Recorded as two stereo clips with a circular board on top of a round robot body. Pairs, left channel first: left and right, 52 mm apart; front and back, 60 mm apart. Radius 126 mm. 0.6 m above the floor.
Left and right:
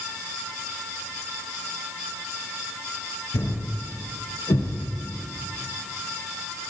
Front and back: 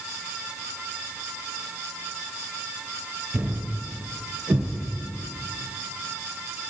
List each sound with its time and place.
3.3 s a thud: 105° left, 3 m